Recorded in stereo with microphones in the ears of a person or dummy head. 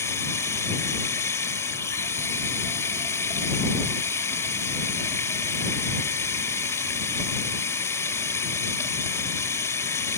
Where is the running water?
10° left (ahead or behind).